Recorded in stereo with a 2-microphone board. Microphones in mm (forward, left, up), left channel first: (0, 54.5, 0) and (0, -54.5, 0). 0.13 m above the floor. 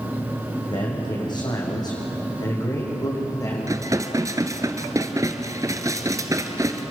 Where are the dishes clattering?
30° right (ahead or behind), 1.4 m.